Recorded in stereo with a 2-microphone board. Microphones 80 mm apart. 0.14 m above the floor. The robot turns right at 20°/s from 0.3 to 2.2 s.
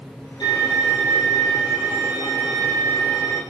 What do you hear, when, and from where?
0.4 s a violin: 75° left, 4.5 m; by 3.4 s 110° left, 4.5 m